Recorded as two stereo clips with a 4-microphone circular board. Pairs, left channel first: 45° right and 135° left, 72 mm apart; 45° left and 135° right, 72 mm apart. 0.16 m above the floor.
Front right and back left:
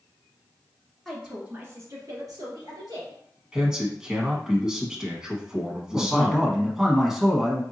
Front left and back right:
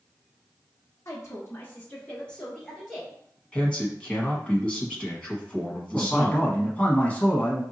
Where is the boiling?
I don't hear boiling.